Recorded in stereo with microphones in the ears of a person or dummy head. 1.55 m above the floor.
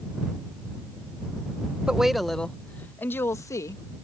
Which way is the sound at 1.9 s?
5° right (ahead or behind).